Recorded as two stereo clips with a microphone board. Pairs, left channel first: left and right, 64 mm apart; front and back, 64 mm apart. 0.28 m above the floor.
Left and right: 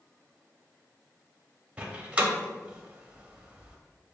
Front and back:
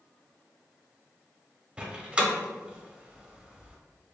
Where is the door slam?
135° right, 0.6 m.